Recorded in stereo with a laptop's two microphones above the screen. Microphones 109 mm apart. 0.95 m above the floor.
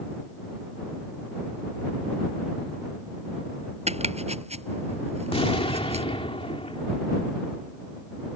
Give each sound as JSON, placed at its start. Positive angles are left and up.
{"t": 3.9, "sound": "chopping", "side_deg": -90}
{"t": 5.3, "sound": "an explosion", "side_deg": 65}